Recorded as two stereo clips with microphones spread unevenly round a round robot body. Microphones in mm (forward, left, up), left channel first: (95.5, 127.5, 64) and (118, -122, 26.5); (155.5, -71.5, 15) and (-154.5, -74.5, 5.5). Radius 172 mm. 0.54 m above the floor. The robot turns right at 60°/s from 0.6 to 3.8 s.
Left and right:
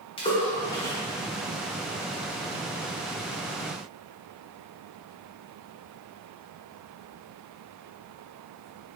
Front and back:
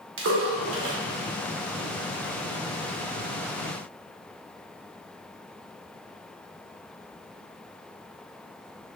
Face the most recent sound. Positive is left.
turn(degrees=-5)